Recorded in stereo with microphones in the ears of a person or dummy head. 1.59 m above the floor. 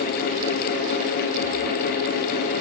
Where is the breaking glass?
No breaking glass in this recording.